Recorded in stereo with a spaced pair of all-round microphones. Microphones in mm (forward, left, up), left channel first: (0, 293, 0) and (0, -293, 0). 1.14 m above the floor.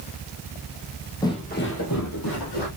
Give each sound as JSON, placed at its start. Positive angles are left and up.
{"t": 1.2, "sound": "footsteps", "side_deg": 5, "distance_m": 1.4}